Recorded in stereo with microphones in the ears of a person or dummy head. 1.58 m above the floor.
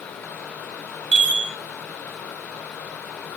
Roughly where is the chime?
Right.